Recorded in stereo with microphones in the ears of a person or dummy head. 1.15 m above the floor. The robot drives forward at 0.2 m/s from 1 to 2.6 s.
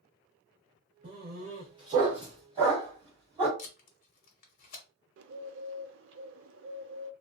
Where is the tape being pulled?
40° left (ahead or behind), 0.8 m.